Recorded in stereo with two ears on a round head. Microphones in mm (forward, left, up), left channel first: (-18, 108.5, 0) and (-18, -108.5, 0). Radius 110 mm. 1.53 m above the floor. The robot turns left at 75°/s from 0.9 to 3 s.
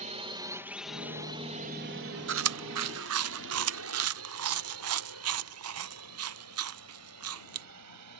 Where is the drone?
30° right (ahead or behind); by 8.2 s 85° right.